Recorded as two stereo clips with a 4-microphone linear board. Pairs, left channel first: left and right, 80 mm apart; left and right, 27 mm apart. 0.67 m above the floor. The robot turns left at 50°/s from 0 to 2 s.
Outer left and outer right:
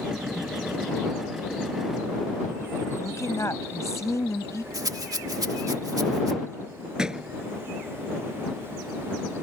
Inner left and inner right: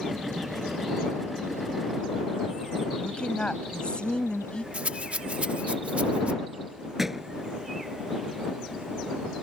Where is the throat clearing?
I don't hear throat clearing.